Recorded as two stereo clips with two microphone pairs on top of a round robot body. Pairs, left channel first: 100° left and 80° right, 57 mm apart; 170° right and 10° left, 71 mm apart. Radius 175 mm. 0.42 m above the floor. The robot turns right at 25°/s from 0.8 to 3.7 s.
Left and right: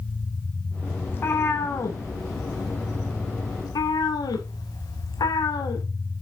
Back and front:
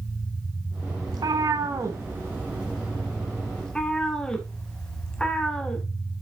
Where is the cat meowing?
45° left, 0.8 m; by 5.8 s 110° left, 0.8 m.